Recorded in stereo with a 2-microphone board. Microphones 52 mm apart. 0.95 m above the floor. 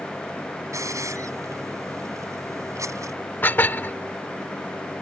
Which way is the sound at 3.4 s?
40° left (ahead or behind).